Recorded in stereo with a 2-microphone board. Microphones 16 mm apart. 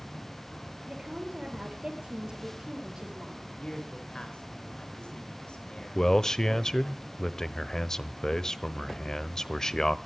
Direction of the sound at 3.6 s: 70° left (ahead or behind).